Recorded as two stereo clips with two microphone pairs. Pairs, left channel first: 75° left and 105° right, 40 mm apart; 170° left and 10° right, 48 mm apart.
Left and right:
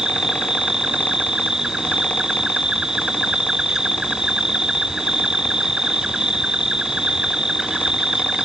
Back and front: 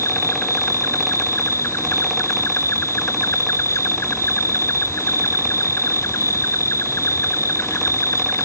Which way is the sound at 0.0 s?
Straight behind.